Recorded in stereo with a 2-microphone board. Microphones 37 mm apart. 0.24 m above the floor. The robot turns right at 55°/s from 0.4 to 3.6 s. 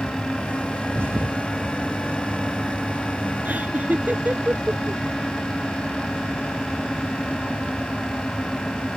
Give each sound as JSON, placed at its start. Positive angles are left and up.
{"t": 0.9, "sound": "a thud", "side_deg": -65}
{"t": 3.5, "sound": "laughter", "side_deg": -55}